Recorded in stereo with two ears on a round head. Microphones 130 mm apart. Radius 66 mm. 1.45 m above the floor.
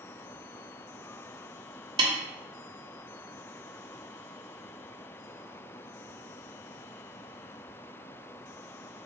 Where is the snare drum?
35° right (ahead or behind), 1.0 m.